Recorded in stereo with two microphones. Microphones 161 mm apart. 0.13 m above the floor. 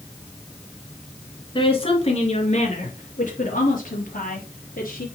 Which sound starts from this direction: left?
A woman speaking, at 1.6 s.